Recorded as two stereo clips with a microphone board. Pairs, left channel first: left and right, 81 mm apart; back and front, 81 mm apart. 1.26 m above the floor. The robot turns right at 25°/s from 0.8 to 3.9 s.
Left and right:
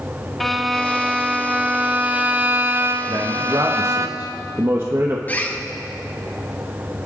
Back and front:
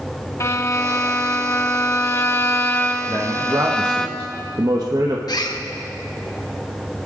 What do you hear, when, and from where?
0.4 s a violin: 175° left, 0.8 m; by 4.1 s 105° right, 0.8 m
3.1 s a man speaking: 55° right, 1.2 m; by 5.2 s 35° right, 1.2 m
5.3 s a bird: 155° left, 1.0 m